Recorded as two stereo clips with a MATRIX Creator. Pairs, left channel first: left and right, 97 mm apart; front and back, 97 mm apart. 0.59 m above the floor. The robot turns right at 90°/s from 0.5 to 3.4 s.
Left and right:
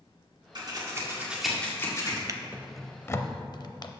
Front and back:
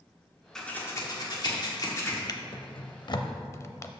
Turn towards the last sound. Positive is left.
turn(degrees=55)